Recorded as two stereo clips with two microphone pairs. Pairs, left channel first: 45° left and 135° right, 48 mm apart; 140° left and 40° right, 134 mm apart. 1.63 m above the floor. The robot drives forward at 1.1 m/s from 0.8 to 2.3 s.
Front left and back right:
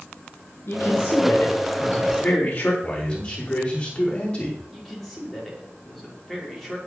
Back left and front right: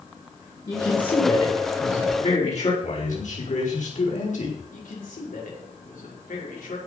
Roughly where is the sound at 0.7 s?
Left.